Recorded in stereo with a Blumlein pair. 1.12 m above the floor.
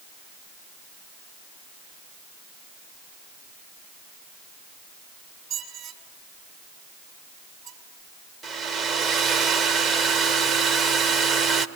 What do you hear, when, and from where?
5.5 s a squeak: 30° right, 3.5 m
8.4 s a hair dryer: 25° right, 1.3 m